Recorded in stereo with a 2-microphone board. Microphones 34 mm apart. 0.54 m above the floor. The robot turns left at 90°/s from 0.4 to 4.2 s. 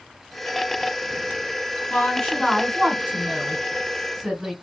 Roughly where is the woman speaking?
Ahead left.